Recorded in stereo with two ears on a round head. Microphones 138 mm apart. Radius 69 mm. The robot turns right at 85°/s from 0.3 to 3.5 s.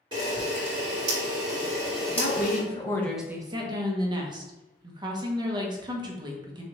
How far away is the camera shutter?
About 2.5 m.